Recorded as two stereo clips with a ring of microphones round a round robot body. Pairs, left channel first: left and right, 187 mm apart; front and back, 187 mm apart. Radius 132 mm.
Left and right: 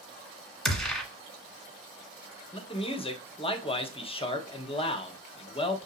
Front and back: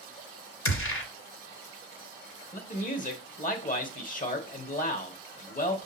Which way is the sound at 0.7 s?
Straight ahead.